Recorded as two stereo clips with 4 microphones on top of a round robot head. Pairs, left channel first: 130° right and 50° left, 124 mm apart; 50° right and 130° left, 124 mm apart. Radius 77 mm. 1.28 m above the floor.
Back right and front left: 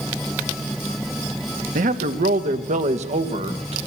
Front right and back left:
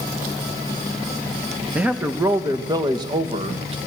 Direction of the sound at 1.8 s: 50° left.